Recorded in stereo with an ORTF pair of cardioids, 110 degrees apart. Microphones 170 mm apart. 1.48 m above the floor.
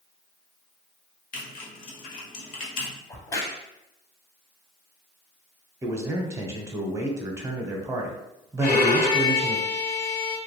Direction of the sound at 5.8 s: 20° right.